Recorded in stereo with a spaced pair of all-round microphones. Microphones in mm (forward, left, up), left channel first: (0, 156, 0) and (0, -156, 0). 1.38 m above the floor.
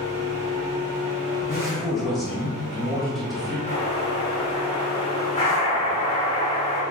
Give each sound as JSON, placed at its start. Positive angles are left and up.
{"t": 0.0, "sound": "a machine running", "side_deg": -85, "distance_m": 1.4}
{"t": 1.4, "sound": "a man speaking", "side_deg": 0, "distance_m": 1.2}
{"t": 3.7, "sound": "an explosion", "side_deg": 20, "distance_m": 1.2}